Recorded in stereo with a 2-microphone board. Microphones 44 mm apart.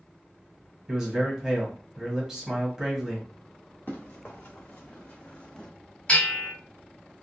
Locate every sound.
0.9 s a man speaking: 15° right (ahead or behind), 1.3 m
3.9 s running footsteps: 45° left (ahead or behind), 1.7 m; by 5.7 s 15° left (ahead or behind), 0.6 m
6.1 s a bell: 25° left (ahead or behind), 2.0 m